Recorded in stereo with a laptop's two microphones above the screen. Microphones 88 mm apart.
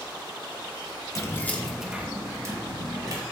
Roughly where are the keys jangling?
Left.